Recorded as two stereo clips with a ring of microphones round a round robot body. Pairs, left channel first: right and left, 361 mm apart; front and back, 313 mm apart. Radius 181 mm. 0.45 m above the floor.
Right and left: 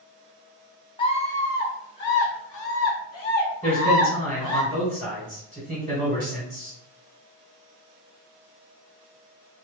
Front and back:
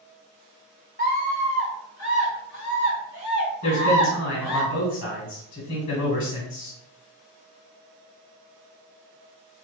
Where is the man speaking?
Straight ahead, 1.6 m.